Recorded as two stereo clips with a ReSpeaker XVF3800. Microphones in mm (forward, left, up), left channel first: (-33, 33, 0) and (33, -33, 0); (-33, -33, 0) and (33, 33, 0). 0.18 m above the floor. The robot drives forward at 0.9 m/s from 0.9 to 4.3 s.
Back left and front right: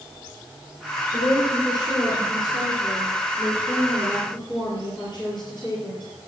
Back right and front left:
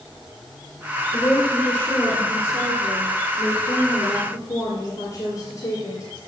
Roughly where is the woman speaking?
Behind left.